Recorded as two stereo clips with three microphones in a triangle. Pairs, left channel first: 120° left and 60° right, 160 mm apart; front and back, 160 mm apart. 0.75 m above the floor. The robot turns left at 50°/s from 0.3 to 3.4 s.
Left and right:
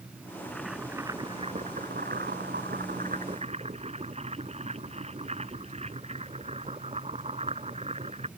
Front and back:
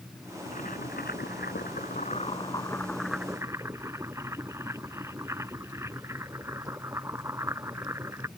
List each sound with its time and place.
0.5 s boiling: 40° left; by 8.3 s 105° right